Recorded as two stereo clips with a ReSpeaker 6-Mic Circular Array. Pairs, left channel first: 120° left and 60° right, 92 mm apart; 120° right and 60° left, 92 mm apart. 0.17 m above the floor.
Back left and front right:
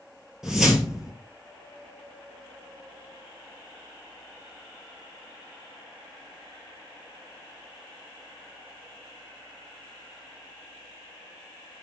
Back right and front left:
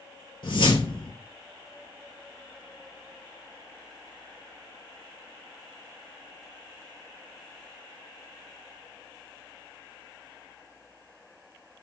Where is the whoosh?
145° right, 1.4 m.